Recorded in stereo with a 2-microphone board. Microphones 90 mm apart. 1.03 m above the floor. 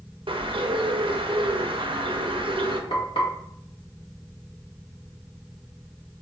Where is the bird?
75° right (ahead or behind), 0.6 m.